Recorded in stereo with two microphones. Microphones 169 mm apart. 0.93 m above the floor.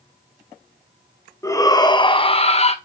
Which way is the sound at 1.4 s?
15° left (ahead or behind).